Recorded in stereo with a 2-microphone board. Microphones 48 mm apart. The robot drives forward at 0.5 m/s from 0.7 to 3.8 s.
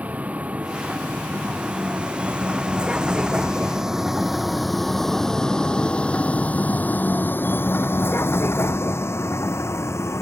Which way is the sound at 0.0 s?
30° right (ahead or behind).